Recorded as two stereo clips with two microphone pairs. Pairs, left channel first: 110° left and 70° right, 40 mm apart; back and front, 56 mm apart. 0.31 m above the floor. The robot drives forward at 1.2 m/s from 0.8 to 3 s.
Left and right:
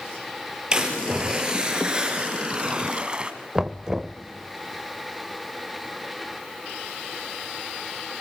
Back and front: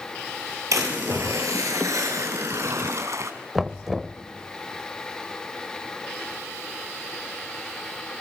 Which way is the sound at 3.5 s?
65° right.